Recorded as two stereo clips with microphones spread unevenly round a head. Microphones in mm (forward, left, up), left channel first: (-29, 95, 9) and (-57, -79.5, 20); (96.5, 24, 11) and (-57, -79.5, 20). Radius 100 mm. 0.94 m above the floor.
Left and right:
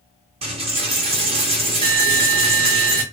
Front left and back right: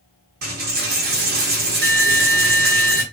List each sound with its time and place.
0.4 s a dropped coin: 145° right, 0.8 m